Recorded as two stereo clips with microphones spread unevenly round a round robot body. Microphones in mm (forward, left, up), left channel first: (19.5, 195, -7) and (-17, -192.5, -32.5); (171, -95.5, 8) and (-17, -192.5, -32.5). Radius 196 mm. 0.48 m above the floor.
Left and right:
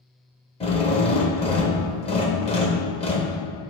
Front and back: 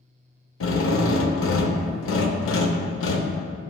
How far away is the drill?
About 0.8 m.